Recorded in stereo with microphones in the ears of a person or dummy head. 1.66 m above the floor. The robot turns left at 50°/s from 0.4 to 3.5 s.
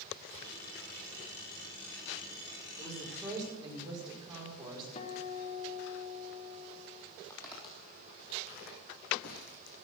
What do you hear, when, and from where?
2.8 s a woman speaking: 10° left, 5.5 m; by 4.8 s 25° right, 5.5 m
5.0 s a guitar: 40° left (ahead or behind), 1.1 m
7.3 s footsteps: 20° left (ahead or behind), 3.5 m; by 9.8 s 65° left (ahead or behind), 4.5 m